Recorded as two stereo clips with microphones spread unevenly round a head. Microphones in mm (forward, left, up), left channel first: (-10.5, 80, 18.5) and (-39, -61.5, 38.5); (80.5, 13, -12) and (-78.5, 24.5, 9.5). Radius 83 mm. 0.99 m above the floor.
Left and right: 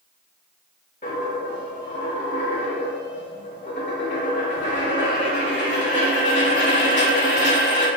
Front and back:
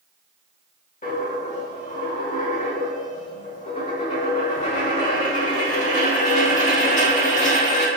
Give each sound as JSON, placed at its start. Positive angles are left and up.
{"t": 1.0, "sound": "a dropped coin", "azimuth_deg": 35, "distance_m": 0.9}